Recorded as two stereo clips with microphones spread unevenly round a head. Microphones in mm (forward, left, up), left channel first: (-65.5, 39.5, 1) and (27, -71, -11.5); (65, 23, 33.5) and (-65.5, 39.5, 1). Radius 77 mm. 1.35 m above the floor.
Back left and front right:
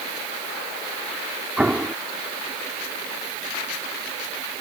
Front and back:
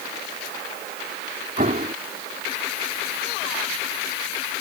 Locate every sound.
1.6 s an explosion: 135° right